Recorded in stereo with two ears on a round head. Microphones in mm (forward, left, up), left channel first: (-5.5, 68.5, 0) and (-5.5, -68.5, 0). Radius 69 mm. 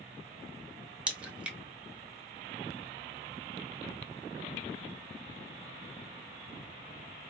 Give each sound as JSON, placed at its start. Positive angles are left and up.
{"t": 1.1, "sound": "a crack", "side_deg": -5, "distance_m": 0.8}